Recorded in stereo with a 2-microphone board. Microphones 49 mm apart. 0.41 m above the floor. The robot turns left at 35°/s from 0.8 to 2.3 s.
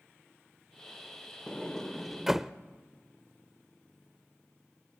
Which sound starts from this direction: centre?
A sliding door, at 1.5 s.